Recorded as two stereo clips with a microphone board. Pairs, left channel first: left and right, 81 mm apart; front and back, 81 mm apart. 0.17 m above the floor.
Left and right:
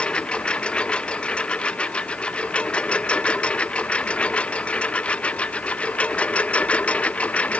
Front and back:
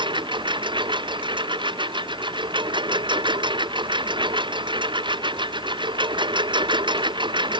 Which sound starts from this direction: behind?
A lawn mower, at 0.0 s.